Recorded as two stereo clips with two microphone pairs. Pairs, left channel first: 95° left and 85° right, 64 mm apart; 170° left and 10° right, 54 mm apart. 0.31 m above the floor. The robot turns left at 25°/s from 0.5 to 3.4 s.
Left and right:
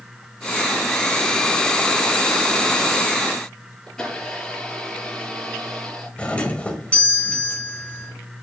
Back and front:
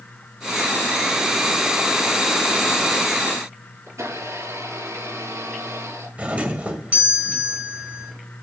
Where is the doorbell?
35° left, 1.9 m.